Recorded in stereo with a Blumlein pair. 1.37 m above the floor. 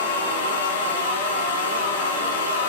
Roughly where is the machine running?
Ahead left.